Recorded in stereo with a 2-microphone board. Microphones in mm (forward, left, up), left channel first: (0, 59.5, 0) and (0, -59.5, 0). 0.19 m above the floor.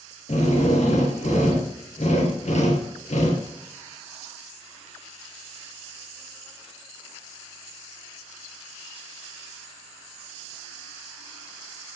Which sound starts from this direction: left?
A drill, at 0.3 s.